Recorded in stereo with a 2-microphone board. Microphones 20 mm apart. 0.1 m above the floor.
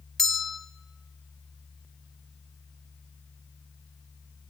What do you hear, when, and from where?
0.2 s a bell: 15° left (ahead or behind), 0.5 m